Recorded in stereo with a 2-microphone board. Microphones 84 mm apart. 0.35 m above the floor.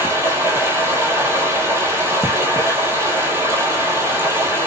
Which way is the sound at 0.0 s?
30° right (ahead or behind).